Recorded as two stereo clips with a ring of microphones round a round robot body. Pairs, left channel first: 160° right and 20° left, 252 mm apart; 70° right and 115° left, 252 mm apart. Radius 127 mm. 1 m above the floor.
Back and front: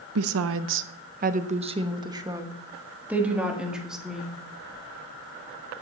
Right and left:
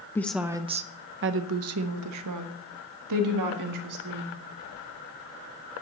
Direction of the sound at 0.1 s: 10° left.